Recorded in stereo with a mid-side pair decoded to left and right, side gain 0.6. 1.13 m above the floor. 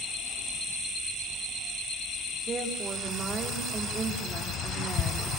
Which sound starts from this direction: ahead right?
A woman speaking, at 2.5 s.